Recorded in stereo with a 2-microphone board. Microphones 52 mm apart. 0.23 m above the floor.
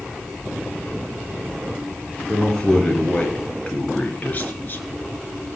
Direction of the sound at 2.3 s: 10° left (ahead or behind).